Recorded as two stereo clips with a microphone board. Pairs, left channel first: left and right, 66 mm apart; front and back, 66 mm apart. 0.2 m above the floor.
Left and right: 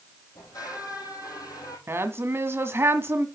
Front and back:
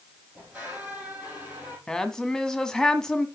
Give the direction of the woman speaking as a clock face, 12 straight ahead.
3 o'clock.